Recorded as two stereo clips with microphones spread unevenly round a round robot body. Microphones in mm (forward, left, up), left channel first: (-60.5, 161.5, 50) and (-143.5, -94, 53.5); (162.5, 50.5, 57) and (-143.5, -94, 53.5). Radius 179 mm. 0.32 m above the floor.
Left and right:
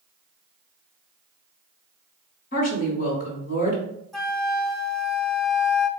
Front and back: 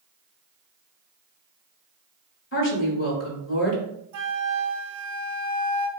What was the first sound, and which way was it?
A woman speaking, 50° left.